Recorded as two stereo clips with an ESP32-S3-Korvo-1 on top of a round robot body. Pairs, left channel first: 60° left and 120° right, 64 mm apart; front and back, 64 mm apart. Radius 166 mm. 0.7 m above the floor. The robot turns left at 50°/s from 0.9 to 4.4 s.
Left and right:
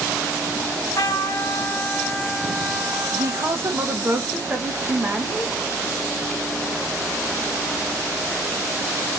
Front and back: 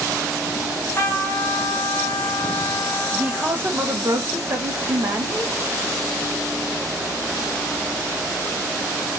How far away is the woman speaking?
About 1.1 m.